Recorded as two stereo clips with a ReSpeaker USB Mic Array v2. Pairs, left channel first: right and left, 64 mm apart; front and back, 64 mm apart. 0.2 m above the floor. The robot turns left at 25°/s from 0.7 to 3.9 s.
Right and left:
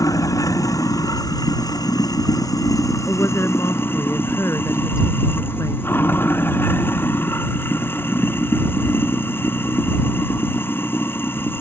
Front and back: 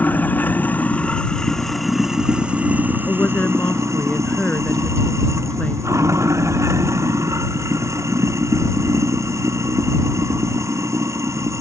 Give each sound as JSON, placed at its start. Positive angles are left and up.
{"t": 0.0, "sound": "running water", "azimuth_deg": -60}
{"t": 3.1, "sound": "a woman speaking", "azimuth_deg": -40}